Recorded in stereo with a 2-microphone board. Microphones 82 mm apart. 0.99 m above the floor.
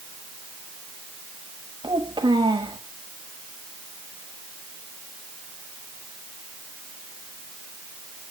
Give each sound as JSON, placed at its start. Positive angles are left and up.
{"t": 1.8, "sound": "a child speaking", "side_deg": -75, "distance_m": 1.2}